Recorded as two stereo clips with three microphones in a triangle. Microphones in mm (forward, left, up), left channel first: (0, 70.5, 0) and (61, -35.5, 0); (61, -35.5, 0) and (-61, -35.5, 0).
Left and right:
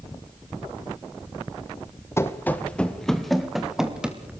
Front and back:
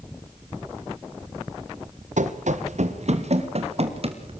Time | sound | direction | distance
2.2 | running footsteps | 170° right | 2.5 m